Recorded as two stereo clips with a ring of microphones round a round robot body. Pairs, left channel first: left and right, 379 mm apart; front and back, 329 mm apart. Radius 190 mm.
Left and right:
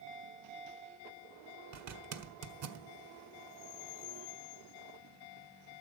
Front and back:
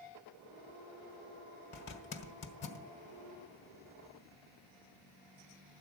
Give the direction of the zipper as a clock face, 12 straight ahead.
2 o'clock.